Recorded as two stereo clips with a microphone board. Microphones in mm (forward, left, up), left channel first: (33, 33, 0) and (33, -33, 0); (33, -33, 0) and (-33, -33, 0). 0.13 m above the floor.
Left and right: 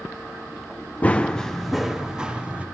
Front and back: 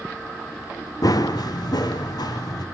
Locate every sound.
1.0 s running footsteps: 20° left, 0.8 m; by 2.6 s 20° right, 1.4 m